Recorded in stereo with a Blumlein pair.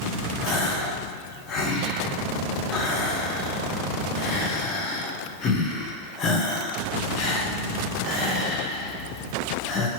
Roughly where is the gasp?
Ahead left.